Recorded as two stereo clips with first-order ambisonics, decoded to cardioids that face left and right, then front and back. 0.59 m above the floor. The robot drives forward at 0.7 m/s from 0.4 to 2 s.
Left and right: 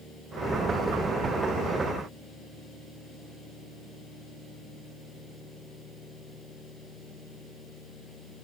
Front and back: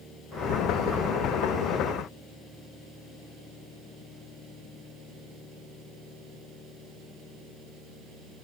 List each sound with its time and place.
Only background noise.